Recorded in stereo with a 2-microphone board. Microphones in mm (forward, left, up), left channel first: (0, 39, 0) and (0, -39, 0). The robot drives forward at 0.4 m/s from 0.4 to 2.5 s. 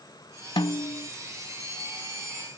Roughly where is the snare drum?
Left.